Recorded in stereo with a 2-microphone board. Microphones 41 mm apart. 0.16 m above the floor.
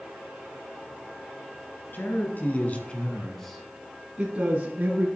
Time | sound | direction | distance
1.9 | a man speaking | 55° left (ahead or behind) | 2.5 m